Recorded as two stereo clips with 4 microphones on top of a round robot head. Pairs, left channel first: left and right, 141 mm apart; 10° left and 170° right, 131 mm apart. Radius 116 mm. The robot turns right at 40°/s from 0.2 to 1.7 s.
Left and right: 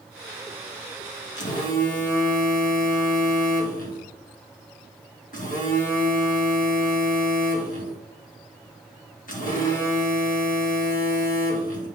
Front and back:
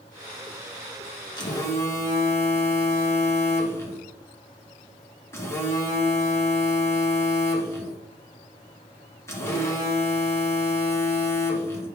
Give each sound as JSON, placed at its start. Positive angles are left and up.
{"t": 1.4, "sound": "a phone buzzing", "azimuth_deg": 65, "distance_m": 2.0}